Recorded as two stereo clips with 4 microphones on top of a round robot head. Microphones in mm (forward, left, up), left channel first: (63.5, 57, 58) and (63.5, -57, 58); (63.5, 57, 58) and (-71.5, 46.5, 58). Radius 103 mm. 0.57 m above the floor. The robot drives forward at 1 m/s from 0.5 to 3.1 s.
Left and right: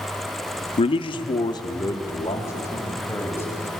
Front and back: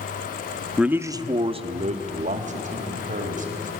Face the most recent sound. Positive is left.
turn(degrees=165)